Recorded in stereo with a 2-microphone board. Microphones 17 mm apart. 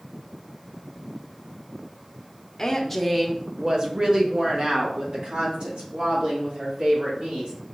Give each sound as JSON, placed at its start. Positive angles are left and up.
{"t": 2.6, "sound": "a woman speaking", "side_deg": 25, "distance_m": 0.6}